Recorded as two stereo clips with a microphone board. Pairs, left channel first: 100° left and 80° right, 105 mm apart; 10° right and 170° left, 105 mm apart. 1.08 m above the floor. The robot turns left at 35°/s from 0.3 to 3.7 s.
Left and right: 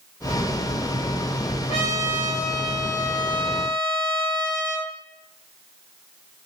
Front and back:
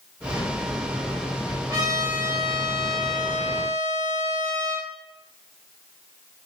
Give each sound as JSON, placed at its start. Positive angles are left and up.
{"t": 1.7, "sound": "a trumpet", "azimuth_deg": 110, "distance_m": 2.5}